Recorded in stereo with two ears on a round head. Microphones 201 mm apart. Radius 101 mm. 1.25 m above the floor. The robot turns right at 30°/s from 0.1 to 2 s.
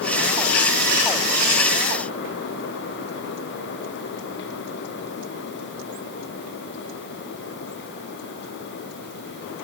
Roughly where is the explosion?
No explosion in this recording.